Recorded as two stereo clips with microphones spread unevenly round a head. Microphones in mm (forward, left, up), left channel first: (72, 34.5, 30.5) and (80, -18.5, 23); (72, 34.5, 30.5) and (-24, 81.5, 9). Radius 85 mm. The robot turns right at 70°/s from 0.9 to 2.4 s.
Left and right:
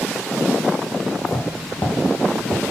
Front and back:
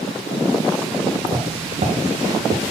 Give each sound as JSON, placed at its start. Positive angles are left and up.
{"t": 1.2, "sound": "footsteps", "azimuth_deg": 90, "distance_m": 2.5}